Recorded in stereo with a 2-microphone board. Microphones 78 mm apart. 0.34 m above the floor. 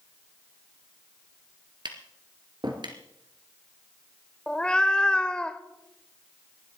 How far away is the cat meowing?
About 0.6 m.